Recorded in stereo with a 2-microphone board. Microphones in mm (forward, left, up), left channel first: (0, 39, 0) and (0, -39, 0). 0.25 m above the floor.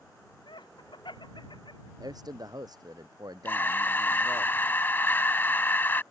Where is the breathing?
30° left (ahead or behind).